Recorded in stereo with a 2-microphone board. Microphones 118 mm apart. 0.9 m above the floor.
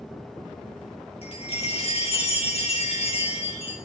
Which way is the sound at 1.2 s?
55° left (ahead or behind).